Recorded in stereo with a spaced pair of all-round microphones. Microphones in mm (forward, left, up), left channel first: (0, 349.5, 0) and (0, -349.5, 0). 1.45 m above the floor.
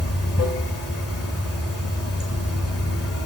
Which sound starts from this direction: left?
Running water, at 0.0 s.